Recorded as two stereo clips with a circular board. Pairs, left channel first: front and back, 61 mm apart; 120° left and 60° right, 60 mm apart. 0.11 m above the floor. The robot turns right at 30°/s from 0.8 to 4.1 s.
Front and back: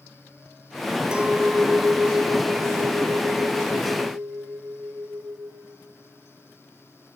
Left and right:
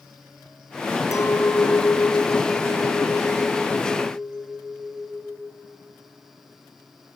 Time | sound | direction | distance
1.1 | a clink | 105° left | 1.5 m